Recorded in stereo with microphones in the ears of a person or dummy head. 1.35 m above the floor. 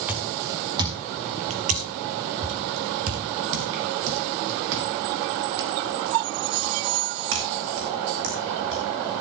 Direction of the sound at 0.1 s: 5° right (ahead or behind).